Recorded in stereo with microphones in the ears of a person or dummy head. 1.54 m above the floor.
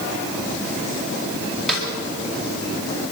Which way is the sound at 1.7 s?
5° left (ahead or behind).